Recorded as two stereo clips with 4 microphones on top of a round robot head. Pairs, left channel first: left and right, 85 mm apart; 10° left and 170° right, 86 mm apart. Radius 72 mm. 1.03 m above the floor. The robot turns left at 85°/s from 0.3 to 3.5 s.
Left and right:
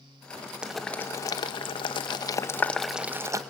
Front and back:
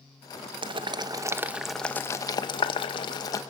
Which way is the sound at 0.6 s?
170° right.